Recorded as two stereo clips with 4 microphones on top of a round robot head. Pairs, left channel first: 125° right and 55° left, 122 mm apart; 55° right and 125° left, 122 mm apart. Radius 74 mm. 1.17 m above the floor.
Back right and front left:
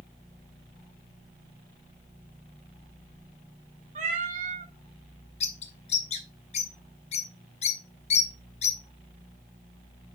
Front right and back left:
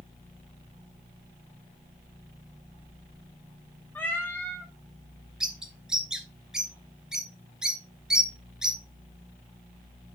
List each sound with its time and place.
4.0 s a cat meowing: 20° left, 1.3 m
5.4 s a bird: 155° right, 0.7 m